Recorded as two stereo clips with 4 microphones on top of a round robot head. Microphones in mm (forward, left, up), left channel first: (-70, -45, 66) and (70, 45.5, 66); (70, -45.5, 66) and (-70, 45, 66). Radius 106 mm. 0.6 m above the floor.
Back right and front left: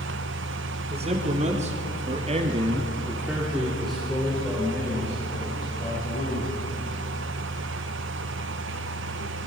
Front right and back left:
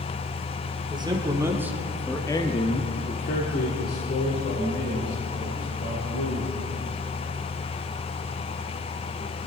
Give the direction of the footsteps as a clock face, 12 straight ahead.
No footsteps in this recording.